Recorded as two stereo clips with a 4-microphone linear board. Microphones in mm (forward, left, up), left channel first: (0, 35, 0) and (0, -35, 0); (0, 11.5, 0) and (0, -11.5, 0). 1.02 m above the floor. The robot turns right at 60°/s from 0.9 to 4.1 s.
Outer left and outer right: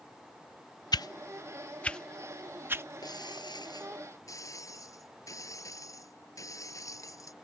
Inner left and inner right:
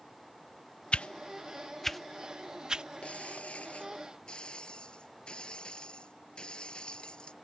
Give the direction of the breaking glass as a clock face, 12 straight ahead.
10 o'clock.